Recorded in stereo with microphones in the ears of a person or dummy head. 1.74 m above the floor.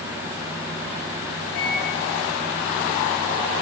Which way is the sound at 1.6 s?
75° left (ahead or behind).